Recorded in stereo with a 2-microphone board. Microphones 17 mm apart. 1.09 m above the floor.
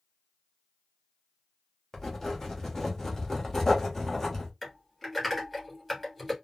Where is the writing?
30° left (ahead or behind), 1.0 m.